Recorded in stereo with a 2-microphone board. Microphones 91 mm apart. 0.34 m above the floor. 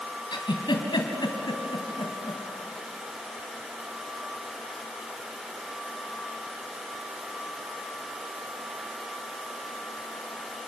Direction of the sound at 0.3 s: 60° left (ahead or behind).